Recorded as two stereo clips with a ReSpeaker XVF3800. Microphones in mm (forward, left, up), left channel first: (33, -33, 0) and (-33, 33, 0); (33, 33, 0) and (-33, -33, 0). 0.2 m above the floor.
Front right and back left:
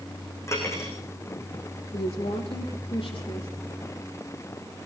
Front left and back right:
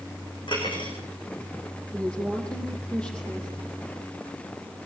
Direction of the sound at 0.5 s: 15° left.